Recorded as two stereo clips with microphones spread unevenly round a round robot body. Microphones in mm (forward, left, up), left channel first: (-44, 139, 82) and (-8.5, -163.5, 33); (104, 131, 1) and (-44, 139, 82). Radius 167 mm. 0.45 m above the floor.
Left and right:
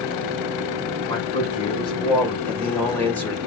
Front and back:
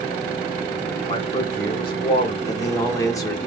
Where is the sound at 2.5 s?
5° left, 1.2 m.